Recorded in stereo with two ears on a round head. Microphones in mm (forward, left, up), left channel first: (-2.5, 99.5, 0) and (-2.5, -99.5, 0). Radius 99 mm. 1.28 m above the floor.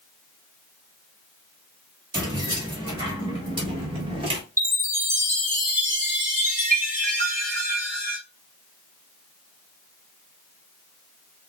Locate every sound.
2.1 s keys jangling: 20° right (ahead or behind), 2 m; by 4.4 s 25° right (ahead or behind), 1.0 m
4.6 s a chime: 10° right (ahead or behind), 1.6 m